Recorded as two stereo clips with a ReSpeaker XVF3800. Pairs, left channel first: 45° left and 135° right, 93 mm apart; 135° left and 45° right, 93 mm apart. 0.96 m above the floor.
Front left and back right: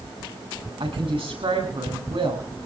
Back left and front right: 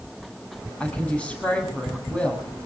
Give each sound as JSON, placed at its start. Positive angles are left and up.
{"t": 0.8, "sound": "a woman speaking", "azimuth_deg": -145, "distance_m": 8.0}